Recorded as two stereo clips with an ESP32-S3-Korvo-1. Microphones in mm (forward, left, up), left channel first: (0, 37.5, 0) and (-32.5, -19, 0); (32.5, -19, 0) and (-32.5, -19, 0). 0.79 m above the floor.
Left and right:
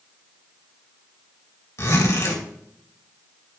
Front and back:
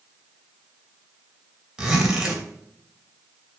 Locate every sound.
1.8 s a zipper: 95° left, 3 m